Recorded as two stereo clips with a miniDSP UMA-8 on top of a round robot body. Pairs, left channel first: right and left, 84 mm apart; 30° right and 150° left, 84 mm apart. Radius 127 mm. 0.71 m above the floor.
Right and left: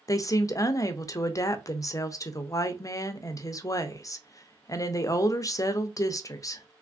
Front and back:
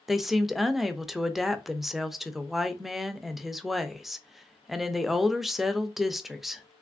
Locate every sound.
0.1 s a woman speaking: 125° right, 0.7 m